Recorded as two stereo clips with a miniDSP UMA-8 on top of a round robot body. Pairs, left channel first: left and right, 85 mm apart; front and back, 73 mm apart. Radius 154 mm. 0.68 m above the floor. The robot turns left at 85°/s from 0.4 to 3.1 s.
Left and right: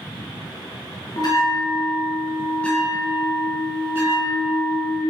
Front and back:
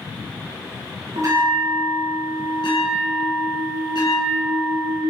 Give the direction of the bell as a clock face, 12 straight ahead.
7 o'clock.